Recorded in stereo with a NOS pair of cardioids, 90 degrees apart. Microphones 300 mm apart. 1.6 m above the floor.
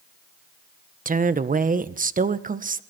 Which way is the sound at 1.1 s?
25° right.